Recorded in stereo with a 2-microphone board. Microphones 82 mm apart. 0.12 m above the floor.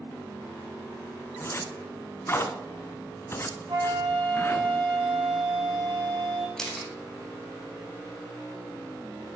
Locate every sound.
1.4 s a zipper: 30° left (ahead or behind), 0.9 m
3.7 s a flute: 50° right (ahead or behind), 3.5 m
6.6 s a camera shutter: 5° left (ahead or behind), 1.5 m